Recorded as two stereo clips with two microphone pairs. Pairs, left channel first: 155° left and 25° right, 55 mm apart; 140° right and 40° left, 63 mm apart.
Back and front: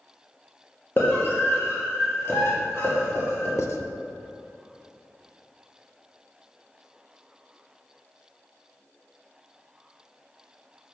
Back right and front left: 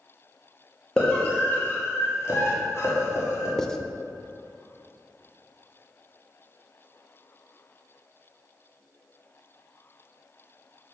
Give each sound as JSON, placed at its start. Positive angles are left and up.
{"t": 1.0, "sound": "a scream", "azimuth_deg": 155, "distance_m": 1.1}
{"t": 3.6, "sound": "writing", "azimuth_deg": 145, "distance_m": 0.5}